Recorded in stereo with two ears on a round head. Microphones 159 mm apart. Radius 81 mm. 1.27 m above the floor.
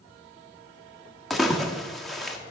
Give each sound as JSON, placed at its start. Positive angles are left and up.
{"t": 1.3, "sound": "a splash", "side_deg": 0, "distance_m": 0.9}